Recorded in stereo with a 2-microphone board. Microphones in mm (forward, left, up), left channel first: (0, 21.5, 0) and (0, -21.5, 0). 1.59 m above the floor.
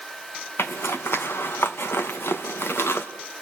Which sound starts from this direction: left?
A zipper, at 0.6 s.